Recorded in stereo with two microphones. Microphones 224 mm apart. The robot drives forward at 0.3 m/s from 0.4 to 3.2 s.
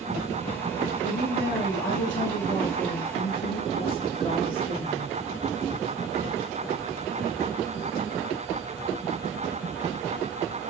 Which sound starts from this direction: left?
A woman speaking, at 1.0 s.